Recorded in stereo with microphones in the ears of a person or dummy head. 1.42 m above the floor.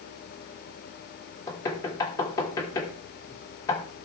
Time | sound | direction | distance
1.5 | knocking | 20° left (ahead or behind) | 2.5 m